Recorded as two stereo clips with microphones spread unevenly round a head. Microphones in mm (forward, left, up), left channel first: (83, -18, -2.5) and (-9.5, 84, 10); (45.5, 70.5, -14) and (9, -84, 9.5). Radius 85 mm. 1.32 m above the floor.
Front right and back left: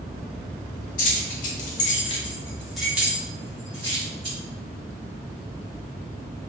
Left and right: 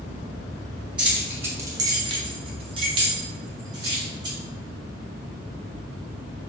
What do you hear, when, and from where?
1.0 s keys jangling: 25° right, 0.9 m; by 4.4 s 170° right, 1.5 m